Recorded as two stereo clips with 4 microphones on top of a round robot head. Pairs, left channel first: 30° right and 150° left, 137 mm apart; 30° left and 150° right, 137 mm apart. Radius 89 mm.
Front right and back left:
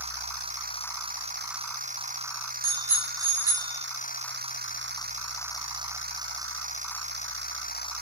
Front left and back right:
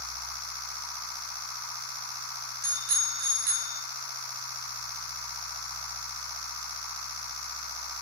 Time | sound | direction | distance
2.6 | a bicycle bell | 145° right | 2.5 m